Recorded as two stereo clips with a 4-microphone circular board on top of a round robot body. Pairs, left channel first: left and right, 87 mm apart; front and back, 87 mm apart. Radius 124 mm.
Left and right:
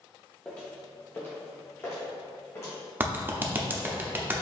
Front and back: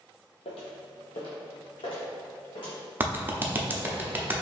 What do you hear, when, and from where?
0.5 s footsteps: 10° left, 0.7 m; by 2.8 s 30° left, 1.8 m
3.0 s a clap: 135° right, 0.8 m